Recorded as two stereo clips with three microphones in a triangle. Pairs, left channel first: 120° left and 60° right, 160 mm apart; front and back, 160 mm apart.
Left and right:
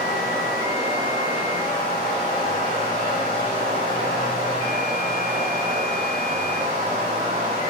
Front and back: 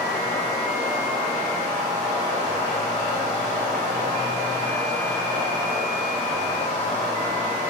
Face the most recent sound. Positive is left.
turn(degrees=-40)